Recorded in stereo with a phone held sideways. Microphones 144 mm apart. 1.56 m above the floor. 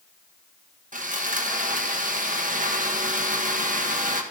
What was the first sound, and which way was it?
Sawing, 65° right (ahead or behind).